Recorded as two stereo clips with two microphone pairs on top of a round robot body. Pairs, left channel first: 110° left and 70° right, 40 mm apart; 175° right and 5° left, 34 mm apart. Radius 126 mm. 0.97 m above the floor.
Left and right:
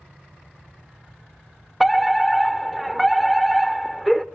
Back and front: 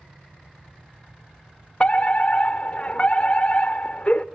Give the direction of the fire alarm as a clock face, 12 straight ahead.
5 o'clock.